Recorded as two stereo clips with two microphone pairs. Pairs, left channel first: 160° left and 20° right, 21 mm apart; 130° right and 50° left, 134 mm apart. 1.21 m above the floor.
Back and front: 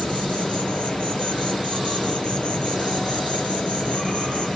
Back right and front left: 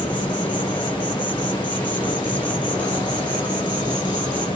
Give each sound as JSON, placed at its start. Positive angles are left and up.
{"t": 0.0, "sound": "an insect", "azimuth_deg": 175, "distance_m": 1.7}